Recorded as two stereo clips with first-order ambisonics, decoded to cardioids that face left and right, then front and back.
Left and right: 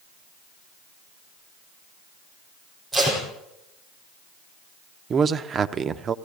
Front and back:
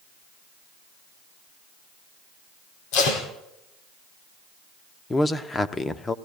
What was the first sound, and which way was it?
Tape being pulled, 5° right.